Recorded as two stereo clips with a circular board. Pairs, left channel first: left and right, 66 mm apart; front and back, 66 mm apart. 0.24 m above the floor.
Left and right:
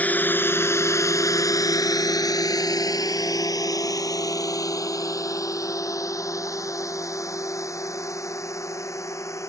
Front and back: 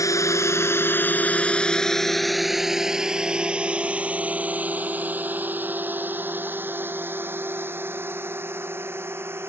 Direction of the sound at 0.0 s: 25° left.